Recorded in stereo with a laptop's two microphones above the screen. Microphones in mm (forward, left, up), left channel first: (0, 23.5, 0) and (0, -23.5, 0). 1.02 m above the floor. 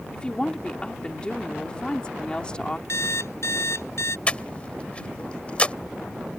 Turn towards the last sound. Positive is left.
turn(degrees=25)  # may be behind; listen again after turning